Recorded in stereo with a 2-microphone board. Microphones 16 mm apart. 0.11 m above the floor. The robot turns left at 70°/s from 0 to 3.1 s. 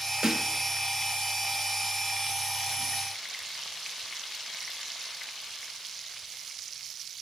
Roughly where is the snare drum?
Right.